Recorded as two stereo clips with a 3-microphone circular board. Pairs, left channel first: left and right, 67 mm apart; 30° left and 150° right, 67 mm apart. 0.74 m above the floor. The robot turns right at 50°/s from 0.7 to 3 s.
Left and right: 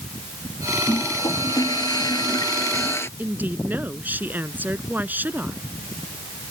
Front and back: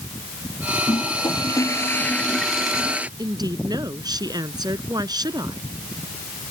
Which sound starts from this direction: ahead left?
A toilet flushing, at 0.9 s.